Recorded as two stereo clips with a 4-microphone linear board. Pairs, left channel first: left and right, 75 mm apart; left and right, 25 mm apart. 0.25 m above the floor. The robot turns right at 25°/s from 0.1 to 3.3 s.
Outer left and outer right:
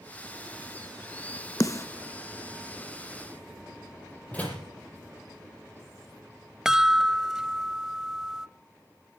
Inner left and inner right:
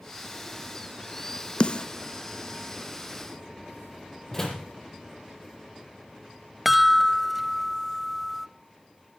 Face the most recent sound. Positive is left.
turn(degrees=-5)  # may be behind; listen again after turning